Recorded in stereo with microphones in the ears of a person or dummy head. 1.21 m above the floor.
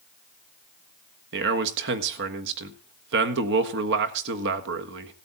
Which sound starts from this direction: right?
A man speaking, at 1.3 s.